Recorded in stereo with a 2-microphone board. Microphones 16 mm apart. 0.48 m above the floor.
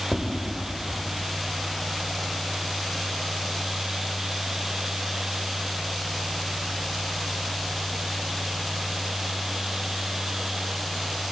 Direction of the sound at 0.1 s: 20° left (ahead or behind).